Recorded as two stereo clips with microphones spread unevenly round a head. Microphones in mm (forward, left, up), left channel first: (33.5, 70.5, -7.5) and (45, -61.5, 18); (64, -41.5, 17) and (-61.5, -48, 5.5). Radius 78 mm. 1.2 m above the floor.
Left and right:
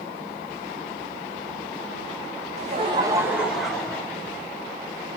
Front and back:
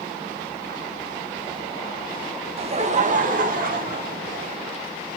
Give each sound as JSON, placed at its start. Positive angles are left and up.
{"t": 2.6, "sound": "laughter", "azimuth_deg": -135, "distance_m": 0.9}